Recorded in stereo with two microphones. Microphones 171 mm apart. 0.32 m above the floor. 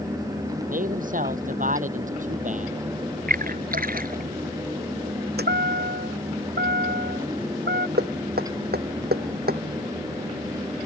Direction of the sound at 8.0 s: 65° right (ahead or behind).